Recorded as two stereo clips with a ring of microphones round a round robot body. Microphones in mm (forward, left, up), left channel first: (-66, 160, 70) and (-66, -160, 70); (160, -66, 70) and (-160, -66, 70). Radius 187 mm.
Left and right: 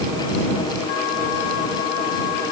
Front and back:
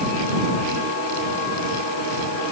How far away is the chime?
I don't hear a chime.